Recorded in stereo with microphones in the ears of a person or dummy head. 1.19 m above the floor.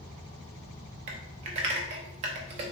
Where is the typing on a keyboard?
40° right (ahead or behind), 0.7 m.